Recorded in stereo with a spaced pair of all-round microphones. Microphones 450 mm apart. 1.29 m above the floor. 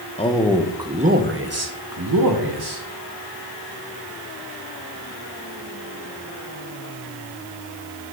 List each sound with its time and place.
0.2 s a man speaking: 15° left (ahead or behind), 1.2 m; by 2.8 s 60° right (ahead or behind), 1.8 m